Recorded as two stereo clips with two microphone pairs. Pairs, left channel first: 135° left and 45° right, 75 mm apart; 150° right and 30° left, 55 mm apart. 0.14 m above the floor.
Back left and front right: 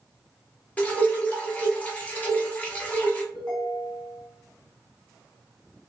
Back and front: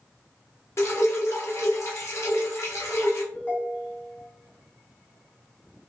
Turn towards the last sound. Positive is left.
turn(degrees=-150)